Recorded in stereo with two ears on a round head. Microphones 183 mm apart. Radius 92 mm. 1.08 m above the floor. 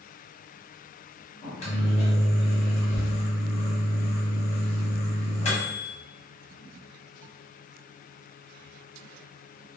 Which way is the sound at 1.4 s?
30° left (ahead or behind).